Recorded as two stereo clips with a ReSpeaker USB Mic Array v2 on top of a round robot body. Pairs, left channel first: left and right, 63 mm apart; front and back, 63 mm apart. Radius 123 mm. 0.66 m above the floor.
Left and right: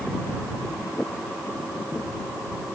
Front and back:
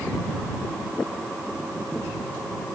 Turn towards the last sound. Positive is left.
No sound to turn to.